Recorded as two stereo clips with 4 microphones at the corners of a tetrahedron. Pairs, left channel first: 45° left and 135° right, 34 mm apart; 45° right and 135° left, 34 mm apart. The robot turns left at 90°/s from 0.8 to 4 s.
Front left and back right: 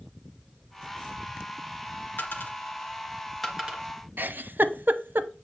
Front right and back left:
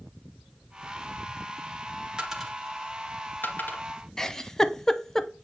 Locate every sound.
2.2 s a dropped coin: 70° left, 2 m; by 3.8 s 80° right, 2 m
4.2 s a giggle: 125° right, 0.7 m